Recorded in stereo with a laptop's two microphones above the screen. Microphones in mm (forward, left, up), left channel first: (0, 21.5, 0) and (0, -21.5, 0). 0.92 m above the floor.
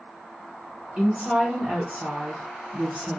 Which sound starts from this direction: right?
A woman speaking, at 1.0 s.